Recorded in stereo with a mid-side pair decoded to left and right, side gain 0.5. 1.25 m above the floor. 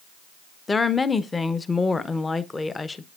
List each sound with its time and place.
0.7 s a woman speaking: 25° left, 0.6 m